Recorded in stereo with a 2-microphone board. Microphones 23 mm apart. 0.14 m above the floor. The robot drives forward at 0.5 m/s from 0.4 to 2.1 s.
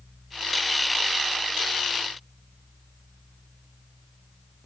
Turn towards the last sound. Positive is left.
No sound to turn to.